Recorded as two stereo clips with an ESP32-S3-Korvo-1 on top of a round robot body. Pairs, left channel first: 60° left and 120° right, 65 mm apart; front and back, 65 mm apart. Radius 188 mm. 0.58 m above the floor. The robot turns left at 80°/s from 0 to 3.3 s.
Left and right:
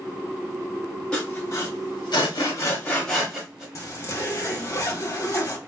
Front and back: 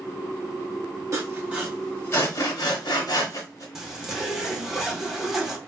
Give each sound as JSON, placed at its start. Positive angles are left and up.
{"t": 1.1, "sound": "sawing", "azimuth_deg": 135, "distance_m": 1.4}
{"t": 3.8, "sound": "a zipper", "azimuth_deg": 95, "distance_m": 1.3}